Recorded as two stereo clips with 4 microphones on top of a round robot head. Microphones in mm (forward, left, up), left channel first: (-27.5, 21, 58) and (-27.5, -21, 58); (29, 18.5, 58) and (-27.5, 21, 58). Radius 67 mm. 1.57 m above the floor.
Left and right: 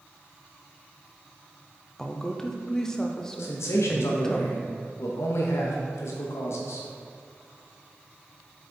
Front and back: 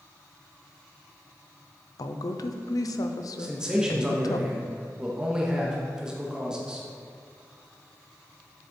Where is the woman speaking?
15° left, 0.7 m.